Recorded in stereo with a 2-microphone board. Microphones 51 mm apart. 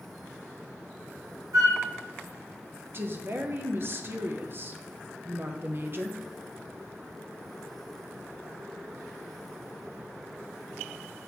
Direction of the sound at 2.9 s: 40° right (ahead or behind).